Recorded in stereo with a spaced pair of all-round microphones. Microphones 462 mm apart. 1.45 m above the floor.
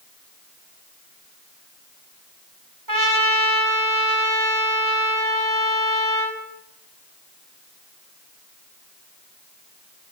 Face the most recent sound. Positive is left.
turn(degrees=-45)  # may be behind; listen again after turning